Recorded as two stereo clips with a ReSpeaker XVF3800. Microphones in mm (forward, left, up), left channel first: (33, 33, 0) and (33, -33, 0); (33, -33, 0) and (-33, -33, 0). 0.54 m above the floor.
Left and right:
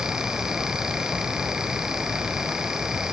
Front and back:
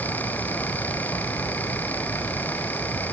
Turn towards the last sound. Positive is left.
No sound to turn to.